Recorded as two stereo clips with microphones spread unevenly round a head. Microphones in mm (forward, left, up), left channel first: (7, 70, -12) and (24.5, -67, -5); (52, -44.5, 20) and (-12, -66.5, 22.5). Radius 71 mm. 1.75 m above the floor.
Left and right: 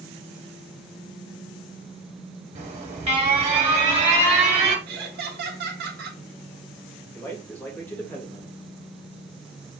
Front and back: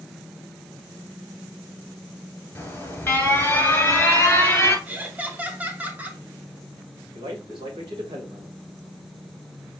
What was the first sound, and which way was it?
An alarm, 35° right.